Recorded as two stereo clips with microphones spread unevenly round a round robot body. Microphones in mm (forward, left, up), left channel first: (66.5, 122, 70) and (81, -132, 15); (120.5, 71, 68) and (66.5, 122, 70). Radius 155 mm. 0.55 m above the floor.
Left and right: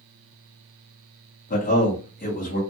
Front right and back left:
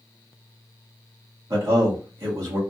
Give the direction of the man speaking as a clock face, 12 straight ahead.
7 o'clock.